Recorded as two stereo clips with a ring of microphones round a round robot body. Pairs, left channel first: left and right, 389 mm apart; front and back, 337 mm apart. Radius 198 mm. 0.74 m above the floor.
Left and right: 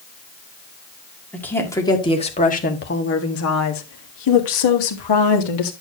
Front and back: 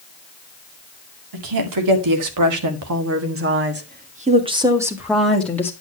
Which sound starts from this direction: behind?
A woman speaking, at 1.3 s.